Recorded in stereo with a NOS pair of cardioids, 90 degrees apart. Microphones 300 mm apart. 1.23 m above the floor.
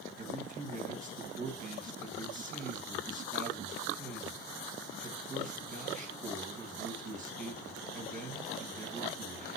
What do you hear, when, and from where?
0.2 s a man speaking: 30° right, 1.8 m